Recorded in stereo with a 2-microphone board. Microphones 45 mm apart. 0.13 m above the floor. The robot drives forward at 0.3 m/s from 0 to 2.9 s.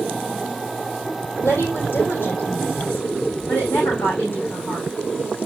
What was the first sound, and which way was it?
A woman speaking, 45° left (ahead or behind).